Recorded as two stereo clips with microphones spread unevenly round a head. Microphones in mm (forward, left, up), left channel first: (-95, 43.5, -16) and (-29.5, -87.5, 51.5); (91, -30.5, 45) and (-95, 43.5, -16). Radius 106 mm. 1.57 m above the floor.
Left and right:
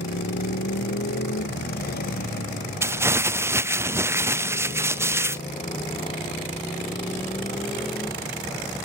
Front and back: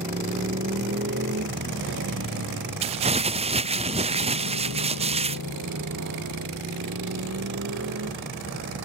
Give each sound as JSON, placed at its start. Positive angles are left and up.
{"t": 0.0, "sound": "a motorcycle", "azimuth_deg": 100}
{"t": 2.8, "sound": "crumpling", "azimuth_deg": -145}